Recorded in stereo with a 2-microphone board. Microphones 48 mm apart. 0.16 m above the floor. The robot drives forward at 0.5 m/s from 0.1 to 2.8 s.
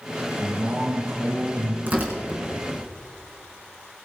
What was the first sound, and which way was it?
A man speaking, 40° right (ahead or behind).